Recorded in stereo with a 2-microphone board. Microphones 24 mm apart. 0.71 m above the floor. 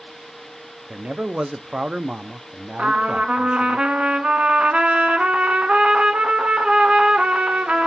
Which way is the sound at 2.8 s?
55° right (ahead or behind).